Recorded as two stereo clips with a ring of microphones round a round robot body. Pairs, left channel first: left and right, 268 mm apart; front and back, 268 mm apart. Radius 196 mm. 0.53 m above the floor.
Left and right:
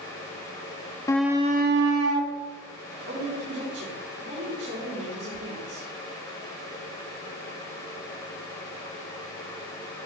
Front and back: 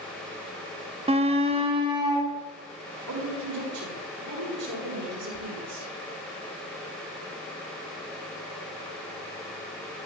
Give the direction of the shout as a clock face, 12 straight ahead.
7 o'clock.